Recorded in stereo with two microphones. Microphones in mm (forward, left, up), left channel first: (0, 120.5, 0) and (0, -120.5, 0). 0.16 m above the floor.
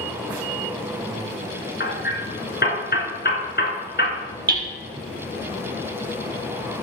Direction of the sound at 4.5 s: 40° right (ahead or behind).